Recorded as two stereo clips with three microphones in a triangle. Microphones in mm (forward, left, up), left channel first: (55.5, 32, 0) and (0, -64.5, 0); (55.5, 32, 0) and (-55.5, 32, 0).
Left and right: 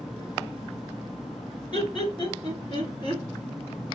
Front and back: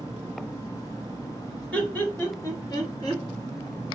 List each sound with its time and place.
1.7 s laughter: 75° left, 1.5 m; by 3.2 s 30° left, 1.6 m